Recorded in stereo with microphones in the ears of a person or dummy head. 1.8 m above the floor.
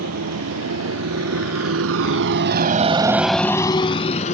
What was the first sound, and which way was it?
A motorcycle, 80° right.